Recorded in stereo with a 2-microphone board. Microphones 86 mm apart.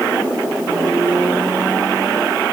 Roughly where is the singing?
No singing in this recording.